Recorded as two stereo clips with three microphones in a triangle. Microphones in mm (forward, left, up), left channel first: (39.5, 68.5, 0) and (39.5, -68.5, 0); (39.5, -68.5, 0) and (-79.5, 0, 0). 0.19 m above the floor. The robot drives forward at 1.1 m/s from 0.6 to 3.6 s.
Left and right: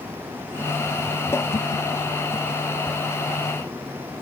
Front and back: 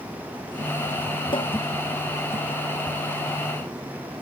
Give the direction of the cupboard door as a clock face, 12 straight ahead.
11 o'clock.